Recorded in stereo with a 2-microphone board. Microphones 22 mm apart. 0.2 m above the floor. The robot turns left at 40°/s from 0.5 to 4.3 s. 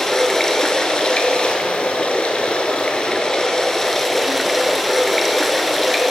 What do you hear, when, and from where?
0.0 s running water: 155° left, 0.8 m; by 6.1 s straight ahead, 0.8 m